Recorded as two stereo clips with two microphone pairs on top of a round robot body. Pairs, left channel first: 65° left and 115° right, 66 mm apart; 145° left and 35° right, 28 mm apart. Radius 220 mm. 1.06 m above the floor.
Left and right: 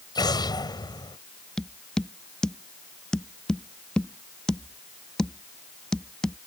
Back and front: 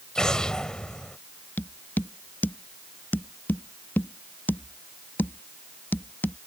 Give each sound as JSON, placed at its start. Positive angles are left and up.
{"t": 0.1, "sound": "an explosion", "azimuth_deg": 80}
{"t": 1.6, "sound": "tapping", "azimuth_deg": 145}